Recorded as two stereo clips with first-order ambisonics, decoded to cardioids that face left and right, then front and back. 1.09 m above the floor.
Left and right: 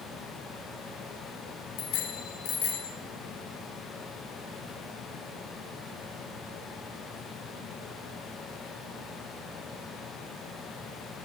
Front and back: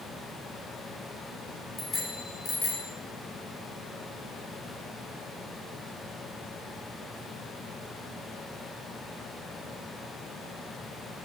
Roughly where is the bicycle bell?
Left.